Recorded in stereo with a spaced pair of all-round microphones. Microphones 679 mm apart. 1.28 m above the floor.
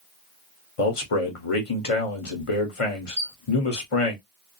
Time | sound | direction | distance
0.8 | a man speaking | 50° left (ahead or behind) | 1.0 m
3.2 | a squeak | 10° right (ahead or behind) | 0.7 m